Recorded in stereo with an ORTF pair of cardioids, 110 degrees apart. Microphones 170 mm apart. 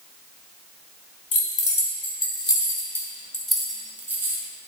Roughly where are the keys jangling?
Ahead left.